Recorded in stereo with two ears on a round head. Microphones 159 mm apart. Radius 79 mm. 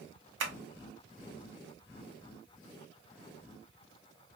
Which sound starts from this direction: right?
Tapping, at 0.4 s.